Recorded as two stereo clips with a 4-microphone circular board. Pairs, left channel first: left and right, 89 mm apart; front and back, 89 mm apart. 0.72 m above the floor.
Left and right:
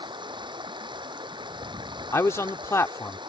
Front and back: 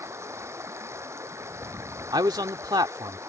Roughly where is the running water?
Behind right.